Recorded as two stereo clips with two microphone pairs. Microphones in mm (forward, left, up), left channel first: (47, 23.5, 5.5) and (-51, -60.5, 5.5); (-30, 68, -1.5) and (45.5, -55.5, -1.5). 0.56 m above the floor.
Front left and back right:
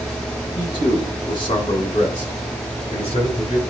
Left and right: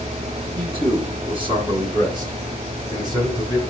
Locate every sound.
0.6 s a man speaking: 10° right, 5 m; by 3.6 s straight ahead, 6 m